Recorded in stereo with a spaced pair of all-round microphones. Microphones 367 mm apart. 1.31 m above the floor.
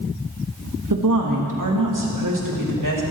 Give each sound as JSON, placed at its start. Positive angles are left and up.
{"t": 0.9, "sound": "a woman speaking", "side_deg": -60, "distance_m": 2.0}